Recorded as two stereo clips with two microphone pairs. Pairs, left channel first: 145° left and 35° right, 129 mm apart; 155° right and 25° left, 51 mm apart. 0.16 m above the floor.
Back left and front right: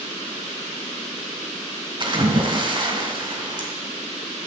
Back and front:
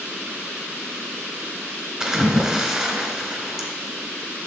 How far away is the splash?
About 1.7 m.